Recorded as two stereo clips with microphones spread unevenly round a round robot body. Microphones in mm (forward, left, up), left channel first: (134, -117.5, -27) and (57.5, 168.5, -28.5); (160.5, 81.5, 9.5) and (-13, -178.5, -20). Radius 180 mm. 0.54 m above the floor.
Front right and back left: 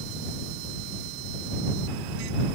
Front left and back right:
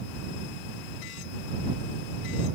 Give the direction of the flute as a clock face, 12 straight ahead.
I don't hear a flute.